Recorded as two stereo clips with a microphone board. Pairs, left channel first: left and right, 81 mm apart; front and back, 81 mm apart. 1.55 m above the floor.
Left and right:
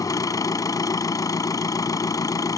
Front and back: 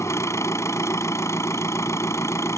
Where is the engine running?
50° left.